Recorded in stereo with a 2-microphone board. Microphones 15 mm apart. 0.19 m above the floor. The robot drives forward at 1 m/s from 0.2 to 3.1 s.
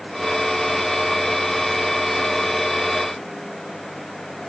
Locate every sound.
Only background noise.